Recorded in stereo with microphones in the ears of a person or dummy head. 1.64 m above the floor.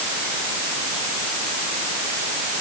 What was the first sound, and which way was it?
Only background noise.